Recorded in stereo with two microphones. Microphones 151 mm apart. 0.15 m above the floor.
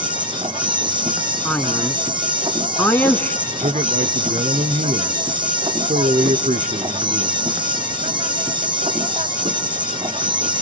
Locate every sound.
0.0 s an insect: 30° right (ahead or behind), 1.7 m
1.4 s a man speaking: 10° left (ahead or behind), 1.5 m
3.5 s a man speaking: 55° right (ahead or behind), 1.7 m